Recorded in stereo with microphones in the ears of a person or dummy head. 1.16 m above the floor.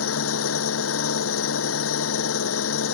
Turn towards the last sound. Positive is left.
turn(degrees=85)